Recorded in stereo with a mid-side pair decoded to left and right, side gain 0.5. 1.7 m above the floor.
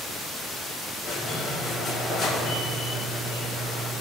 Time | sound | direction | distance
1.0 | a squeak | 55° left | 2.5 m